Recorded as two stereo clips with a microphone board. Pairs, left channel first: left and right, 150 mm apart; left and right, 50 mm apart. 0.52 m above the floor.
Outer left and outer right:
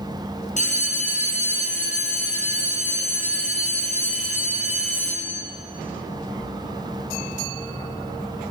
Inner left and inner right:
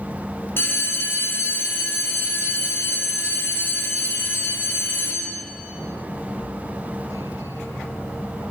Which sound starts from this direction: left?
A bell, at 0.6 s.